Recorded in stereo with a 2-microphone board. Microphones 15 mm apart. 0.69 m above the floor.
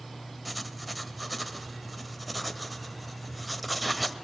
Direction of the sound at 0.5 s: 5° left (ahead or behind).